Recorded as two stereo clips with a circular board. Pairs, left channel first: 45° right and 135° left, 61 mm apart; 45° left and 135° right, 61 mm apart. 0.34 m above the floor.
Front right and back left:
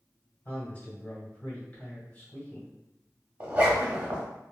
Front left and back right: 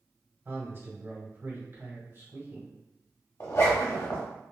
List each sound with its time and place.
0.5 s a man speaking: 100° right, 1.8 m
3.4 s a zipper: 75° left, 0.9 m